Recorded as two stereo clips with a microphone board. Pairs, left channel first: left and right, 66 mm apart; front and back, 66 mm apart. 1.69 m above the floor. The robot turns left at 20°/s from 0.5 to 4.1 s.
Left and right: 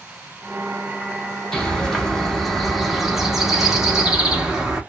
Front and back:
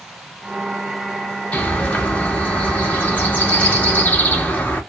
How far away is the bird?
About 0.8 m.